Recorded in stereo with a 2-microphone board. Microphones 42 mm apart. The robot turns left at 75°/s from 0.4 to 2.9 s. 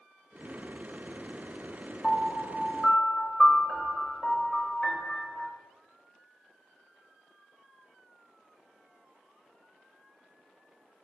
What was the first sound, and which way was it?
A piano, 70° left.